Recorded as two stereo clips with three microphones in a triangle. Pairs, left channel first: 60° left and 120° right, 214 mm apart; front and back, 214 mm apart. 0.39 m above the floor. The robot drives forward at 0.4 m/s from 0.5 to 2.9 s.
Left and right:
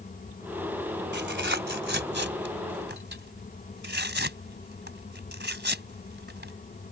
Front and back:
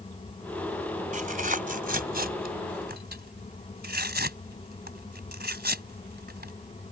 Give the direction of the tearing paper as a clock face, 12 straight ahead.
5 o'clock.